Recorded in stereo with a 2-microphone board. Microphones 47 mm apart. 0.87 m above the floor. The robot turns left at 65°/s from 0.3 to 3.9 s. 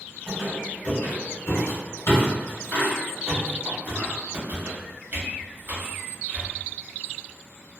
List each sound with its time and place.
0.3 s a squeak: 5° right (ahead or behind), 1.4 m; by 6.5 s 50° right (ahead or behind), 1.4 m